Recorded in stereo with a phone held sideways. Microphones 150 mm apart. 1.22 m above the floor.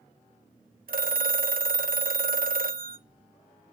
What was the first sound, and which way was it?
A phone ringing, 70° right (ahead or behind).